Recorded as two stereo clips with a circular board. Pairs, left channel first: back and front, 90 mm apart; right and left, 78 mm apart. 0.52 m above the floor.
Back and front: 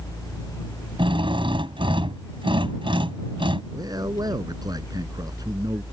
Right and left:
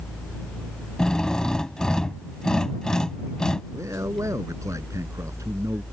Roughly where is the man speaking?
Ahead left.